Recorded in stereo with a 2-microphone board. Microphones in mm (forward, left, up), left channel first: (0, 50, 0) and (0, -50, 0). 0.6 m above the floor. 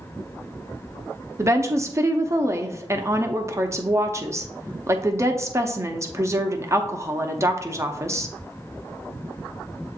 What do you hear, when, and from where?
1.4 s a woman speaking: 30° right (ahead or behind), 0.6 m